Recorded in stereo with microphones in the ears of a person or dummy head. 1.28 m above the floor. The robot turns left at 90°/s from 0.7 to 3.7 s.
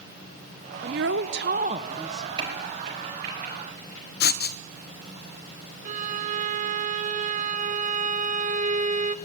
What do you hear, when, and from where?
0.8 s a woman speaking: 60° right, 0.9 m; by 2.3 s 165° left, 0.9 m
2.4 s a crack: 30° right (ahead or behind), 5.5 m
4.2 s writing: 55° left (ahead or behind), 0.8 m
5.8 s a violin: 40° right (ahead or behind), 0.7 m